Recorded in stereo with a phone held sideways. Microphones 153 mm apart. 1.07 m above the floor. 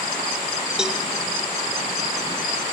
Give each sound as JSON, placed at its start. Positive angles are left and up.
{"t": 0.8, "sound": "a cowbell", "side_deg": -5, "distance_m": 1.1}